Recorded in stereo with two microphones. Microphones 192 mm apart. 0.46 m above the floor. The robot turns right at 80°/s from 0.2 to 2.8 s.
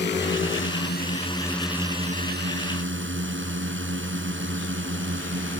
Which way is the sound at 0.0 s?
65° left.